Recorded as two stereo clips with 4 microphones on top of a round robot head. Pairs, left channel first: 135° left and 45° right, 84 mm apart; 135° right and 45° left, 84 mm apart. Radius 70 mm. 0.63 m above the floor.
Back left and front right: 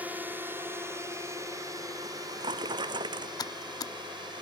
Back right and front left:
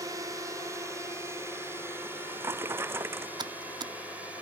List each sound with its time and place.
0.0 s a drone: 15° left; by 4.4 s 25° right
2.0 s a drawer: 15° right
3.4 s typing on a keyboard: 85° left